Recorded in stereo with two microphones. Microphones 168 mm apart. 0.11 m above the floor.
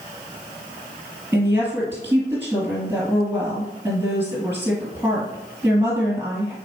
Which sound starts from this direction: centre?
A woman speaking, at 1.3 s.